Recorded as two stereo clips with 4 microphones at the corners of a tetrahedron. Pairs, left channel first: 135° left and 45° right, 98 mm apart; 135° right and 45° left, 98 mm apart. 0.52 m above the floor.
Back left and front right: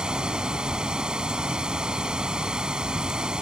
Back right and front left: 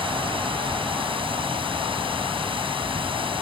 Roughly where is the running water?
Ahead left.